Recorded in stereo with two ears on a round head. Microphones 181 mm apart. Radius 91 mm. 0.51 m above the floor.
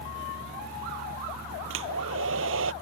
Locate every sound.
1.7 s a hair dryer: 70° right (ahead or behind)